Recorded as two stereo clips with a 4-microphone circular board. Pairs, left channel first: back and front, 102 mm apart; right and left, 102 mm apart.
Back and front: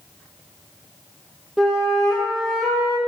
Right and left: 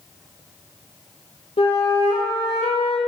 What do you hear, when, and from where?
1.6 s a flute: 90° right, 0.8 m